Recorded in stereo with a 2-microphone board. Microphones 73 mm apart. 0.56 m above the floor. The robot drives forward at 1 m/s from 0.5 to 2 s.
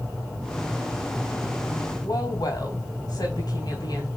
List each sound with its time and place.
2.0 s a woman speaking: 65° left (ahead or behind), 3 m